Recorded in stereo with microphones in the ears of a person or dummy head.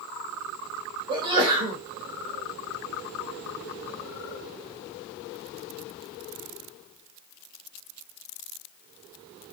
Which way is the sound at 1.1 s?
25° right (ahead or behind).